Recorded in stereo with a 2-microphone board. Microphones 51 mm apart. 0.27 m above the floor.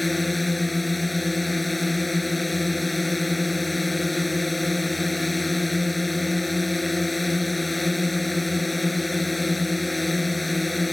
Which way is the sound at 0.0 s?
Centre (ahead or behind).